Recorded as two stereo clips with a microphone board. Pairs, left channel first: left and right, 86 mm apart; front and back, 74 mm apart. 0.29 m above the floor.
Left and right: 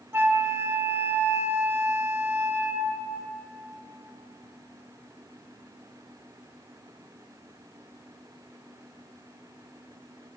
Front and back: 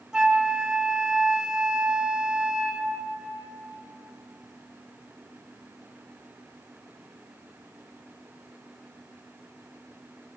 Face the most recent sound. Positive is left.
turn(degrees=-110)